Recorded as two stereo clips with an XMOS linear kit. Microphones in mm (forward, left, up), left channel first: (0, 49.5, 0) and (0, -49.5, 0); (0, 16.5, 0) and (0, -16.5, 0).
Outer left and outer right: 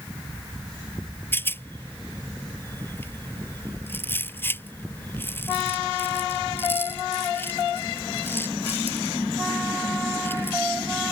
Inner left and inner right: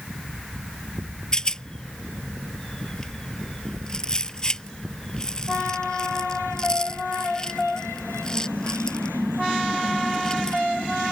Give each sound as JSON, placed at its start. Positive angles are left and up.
{"t": 1.3, "sound": "a rattle", "side_deg": 20}